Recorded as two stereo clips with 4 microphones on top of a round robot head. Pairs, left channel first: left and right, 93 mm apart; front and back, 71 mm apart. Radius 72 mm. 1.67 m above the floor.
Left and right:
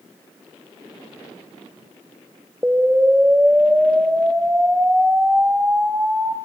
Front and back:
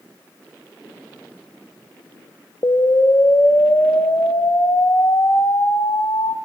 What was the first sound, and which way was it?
An explosion, 20° right.